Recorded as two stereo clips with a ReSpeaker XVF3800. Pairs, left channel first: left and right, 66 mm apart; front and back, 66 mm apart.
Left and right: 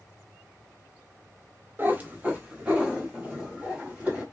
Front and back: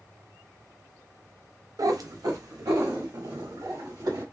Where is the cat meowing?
145° right, 0.6 m; by 4.2 s 165° right, 2 m.